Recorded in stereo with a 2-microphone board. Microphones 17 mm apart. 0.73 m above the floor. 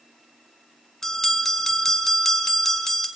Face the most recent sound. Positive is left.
turn(degrees=25)  # may be behind; listen again after turning